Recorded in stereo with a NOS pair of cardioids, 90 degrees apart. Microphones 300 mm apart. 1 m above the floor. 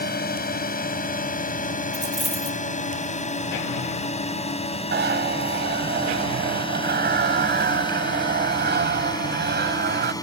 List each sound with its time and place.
0.0 s a drone: 30° left; by 10.2 s 10° left
1.9 s a dropped coin: straight ahead
4.9 s a zipper: 35° right